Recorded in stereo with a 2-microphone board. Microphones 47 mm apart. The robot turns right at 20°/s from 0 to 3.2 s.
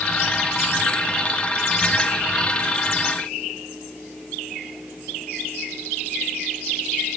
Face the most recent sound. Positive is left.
No sound to turn to.